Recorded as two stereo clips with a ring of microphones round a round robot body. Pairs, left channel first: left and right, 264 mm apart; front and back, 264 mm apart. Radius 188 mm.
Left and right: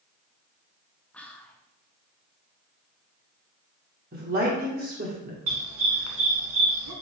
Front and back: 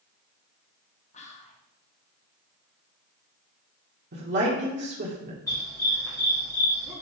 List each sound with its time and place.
1.1 s whispering: 10° left, 0.9 m
4.1 s a woman speaking: 140° right, 1.4 m
5.5 s a dog barking: 80° right, 2 m